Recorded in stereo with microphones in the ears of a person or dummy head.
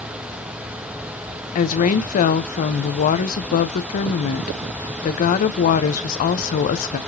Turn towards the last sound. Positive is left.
turn(degrees=40)  # may be behind; listen again after turning